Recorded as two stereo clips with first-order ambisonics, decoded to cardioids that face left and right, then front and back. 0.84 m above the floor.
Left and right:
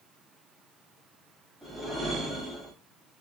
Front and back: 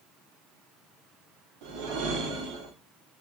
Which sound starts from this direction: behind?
A whoosh, at 1.6 s.